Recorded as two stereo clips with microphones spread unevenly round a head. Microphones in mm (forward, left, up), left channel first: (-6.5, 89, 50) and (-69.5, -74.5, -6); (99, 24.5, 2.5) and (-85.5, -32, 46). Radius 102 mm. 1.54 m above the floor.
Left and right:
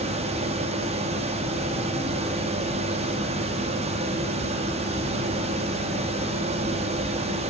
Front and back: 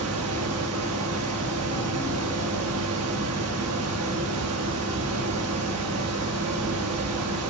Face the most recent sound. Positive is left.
turn(degrees=-170)